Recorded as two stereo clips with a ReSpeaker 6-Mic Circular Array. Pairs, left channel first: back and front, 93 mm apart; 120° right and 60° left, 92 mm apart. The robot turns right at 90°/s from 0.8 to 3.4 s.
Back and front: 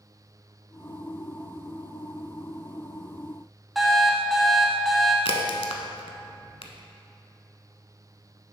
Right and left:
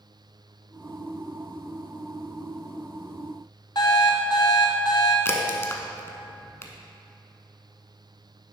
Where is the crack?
Straight behind, 0.8 m.